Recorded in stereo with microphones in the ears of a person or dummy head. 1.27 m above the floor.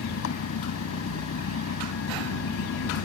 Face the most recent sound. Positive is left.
turn(degrees=90)